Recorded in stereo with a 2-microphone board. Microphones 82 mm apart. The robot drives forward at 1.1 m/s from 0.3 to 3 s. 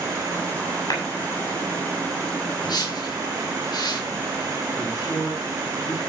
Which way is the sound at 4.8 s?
50° left (ahead or behind).